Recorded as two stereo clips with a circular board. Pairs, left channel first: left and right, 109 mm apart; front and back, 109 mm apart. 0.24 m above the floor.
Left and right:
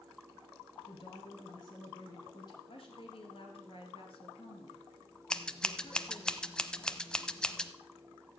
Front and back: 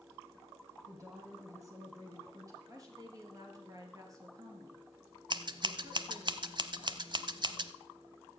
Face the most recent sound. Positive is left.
turn(degrees=170)